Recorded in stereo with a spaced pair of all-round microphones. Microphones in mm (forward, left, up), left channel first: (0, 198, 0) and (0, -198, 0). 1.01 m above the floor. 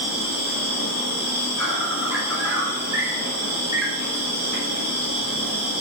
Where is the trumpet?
I don't hear a trumpet.